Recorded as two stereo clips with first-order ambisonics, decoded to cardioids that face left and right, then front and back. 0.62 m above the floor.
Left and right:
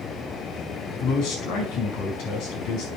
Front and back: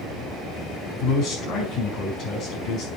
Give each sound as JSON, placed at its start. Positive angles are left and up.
{"t": 1.0, "sound": "a man speaking", "azimuth_deg": 55, "distance_m": 4.5}